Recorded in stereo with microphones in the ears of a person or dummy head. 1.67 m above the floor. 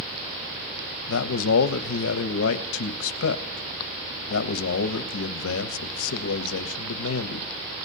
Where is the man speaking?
75° left (ahead or behind), 0.7 m.